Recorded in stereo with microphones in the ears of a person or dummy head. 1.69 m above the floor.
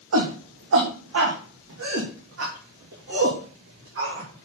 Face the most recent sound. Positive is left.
turn(degrees=-60)  # may be behind; listen again after turning